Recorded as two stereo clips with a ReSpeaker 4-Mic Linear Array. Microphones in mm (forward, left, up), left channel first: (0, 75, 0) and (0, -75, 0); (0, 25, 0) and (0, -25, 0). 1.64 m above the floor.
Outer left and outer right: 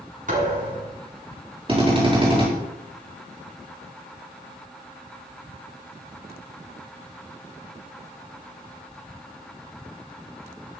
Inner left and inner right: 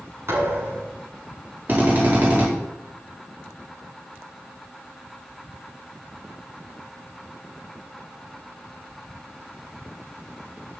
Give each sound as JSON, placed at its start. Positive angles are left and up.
{"t": 0.3, "sound": "a thud", "side_deg": -55, "distance_m": 7.5}
{"t": 1.7, "sound": "a drill", "side_deg": -35, "distance_m": 4.5}